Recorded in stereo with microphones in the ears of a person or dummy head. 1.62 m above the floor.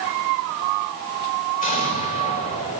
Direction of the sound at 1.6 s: 45° left (ahead or behind).